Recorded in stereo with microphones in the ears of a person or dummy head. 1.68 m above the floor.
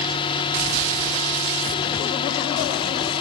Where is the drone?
30° left (ahead or behind).